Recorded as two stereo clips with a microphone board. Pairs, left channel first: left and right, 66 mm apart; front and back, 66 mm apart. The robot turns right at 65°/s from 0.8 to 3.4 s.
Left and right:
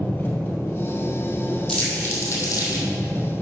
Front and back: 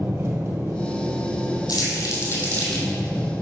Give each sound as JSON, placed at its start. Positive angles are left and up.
{"t": 0.0, "sound": "an engine running", "azimuth_deg": 145, "distance_m": 2.0}
{"t": 1.7, "sound": "crumpling", "azimuth_deg": 5, "distance_m": 3.0}